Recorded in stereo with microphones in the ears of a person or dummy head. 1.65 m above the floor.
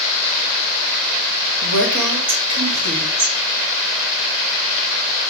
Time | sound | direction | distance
1.6 | a woman speaking | 65° right (ahead or behind) | 0.9 m